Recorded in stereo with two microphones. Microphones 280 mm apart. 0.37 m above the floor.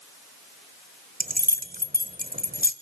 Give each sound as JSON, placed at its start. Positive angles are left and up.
{"t": 1.2, "sound": "keys jangling", "side_deg": -30, "distance_m": 1.2}